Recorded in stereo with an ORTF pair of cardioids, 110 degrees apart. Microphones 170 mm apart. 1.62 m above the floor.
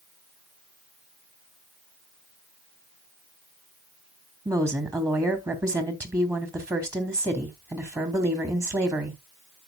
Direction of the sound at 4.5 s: 20° right.